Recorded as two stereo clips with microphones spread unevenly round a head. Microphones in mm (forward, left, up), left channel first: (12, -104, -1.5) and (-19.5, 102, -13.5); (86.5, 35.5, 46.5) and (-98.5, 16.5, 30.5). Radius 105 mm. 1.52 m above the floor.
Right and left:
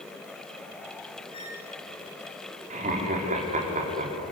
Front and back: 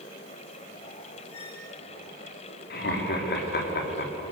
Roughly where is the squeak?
Ahead.